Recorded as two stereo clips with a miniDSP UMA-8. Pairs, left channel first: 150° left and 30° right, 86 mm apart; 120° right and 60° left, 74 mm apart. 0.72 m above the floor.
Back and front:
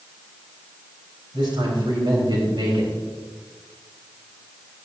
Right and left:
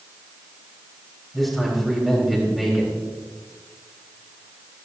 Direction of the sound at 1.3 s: 30° right.